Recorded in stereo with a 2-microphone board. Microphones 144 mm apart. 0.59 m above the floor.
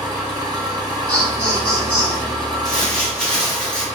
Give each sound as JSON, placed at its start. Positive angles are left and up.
{"t": 0.0, "sound": "an engine running", "side_deg": -25, "distance_m": 1.8}
{"t": 1.1, "sound": "laughter", "side_deg": -15, "distance_m": 1.4}
{"t": 2.6, "sound": "crumpling", "side_deg": 5, "distance_m": 1.4}